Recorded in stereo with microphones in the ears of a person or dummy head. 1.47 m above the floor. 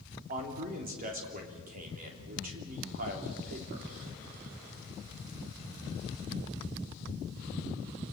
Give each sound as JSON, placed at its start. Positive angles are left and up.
{"t": 0.3, "sound": "a man speaking", "side_deg": -45, "distance_m": 3.5}